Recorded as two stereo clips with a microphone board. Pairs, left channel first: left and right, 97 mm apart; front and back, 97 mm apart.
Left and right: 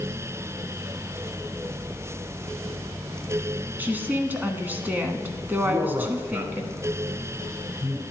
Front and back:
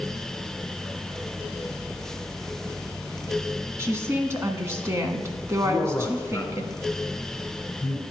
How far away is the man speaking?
About 2 m.